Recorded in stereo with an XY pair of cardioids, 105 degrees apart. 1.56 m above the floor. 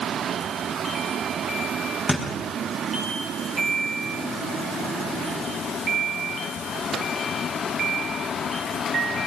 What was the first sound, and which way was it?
A thud, 10° left.